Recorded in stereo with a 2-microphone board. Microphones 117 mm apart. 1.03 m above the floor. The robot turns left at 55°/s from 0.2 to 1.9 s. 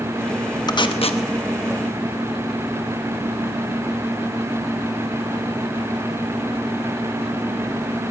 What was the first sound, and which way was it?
Tape being pulled, 40° left (ahead or behind).